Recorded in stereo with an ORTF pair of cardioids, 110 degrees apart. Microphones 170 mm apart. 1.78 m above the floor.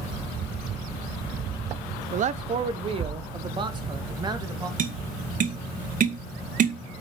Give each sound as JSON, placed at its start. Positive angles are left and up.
{"t": 2.1, "sound": "a man speaking", "azimuth_deg": -50, "distance_m": 1.0}
{"t": 4.8, "sound": "tapping", "azimuth_deg": -50, "distance_m": 2.0}